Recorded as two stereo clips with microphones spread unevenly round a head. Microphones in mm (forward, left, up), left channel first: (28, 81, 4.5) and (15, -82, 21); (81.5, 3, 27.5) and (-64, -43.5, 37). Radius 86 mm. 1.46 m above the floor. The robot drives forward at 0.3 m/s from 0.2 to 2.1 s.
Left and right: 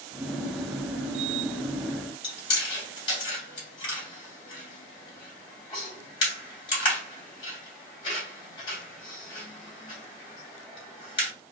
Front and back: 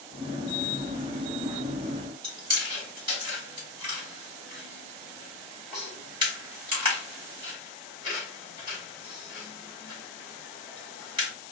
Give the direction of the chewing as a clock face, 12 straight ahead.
7 o'clock.